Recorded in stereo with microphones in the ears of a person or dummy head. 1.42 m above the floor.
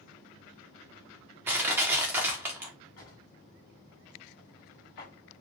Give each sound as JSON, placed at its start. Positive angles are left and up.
{"t": 1.5, "sound": "crushing", "side_deg": -10, "distance_m": 0.7}
{"t": 3.0, "sound": "a drawer", "side_deg": 60, "distance_m": 1.9}